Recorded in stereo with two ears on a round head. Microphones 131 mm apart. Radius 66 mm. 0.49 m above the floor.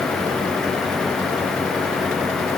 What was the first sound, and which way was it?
Only background noise.